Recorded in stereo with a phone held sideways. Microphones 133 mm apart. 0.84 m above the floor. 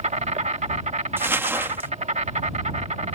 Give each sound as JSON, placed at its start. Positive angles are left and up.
{"t": 0.0, "sound": "an insect", "side_deg": -60}
{"t": 1.2, "sound": "crumpling", "side_deg": -15}